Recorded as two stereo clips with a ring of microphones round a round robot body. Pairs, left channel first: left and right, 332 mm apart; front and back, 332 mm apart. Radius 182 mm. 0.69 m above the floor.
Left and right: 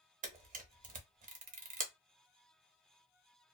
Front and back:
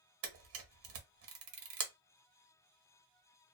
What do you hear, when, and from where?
0.2 s a camera shutter: 150° right, 0.9 m